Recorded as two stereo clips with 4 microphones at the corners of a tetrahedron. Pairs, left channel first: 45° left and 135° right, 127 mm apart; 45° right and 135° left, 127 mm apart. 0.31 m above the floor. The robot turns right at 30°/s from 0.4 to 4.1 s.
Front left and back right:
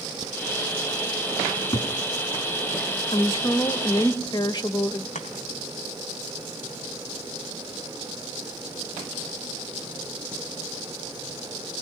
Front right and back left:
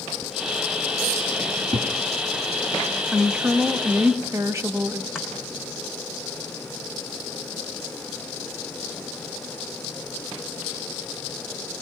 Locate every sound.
1.5 s a cupboard door: 75° left, 2.5 m; by 1.9 s 90° left, 2.5 m
3.1 s a woman speaking: 50° left, 1.1 m; by 5.0 s 80° left, 1.1 m
5.2 s chopping: 50° left, 3.5 m